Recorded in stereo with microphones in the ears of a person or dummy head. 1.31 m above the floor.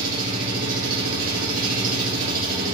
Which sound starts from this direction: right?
An engine running, at 0.0 s.